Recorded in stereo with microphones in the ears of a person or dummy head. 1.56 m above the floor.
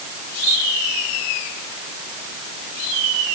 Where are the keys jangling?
I don't hear keys jangling.